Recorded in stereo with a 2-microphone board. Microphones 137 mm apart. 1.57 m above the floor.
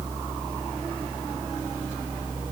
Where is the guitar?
No guitar in this recording.